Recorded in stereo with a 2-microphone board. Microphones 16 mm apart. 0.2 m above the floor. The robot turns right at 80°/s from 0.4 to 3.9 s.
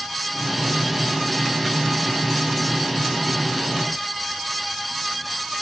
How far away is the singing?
No singing in this recording.